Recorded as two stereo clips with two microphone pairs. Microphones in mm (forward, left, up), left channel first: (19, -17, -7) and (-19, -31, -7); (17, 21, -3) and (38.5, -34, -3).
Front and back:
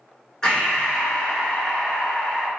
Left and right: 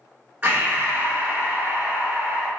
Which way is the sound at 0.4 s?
35° right.